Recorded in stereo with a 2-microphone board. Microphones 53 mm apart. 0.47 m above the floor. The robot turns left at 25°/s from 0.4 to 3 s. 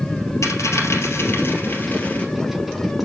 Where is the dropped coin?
75° left (ahead or behind), 2 m; by 2.2 s 30° left (ahead or behind), 2 m.